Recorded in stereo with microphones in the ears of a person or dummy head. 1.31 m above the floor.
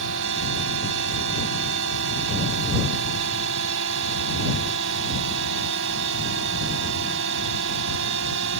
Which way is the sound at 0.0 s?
75° right (ahead or behind).